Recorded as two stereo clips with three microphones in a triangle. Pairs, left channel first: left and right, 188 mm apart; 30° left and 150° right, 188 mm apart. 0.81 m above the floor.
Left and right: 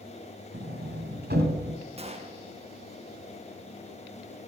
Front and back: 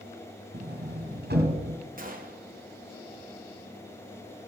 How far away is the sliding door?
About 2 m.